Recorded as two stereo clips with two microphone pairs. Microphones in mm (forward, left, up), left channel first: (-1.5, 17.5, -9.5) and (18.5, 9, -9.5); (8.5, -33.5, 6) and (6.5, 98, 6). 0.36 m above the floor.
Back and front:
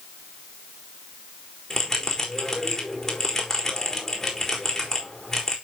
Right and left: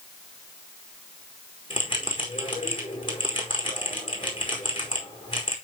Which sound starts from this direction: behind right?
A bell, at 1.7 s.